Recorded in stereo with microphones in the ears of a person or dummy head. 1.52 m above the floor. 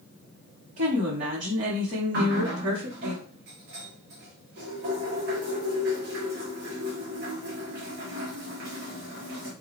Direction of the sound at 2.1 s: 55° right (ahead or behind).